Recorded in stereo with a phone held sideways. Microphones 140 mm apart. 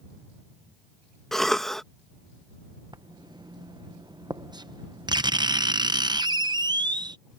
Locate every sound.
1.3 s a cough: centre (ahead or behind)
2.9 s writing: 30° right (ahead or behind)